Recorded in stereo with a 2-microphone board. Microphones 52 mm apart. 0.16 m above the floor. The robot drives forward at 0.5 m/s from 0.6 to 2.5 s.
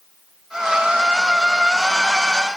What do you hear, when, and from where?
Only background noise.